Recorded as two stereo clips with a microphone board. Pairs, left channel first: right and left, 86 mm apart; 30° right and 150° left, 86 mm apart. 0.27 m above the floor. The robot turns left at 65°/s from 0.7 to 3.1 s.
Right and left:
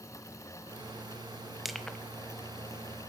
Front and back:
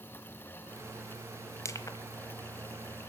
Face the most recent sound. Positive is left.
turn(degrees=-90)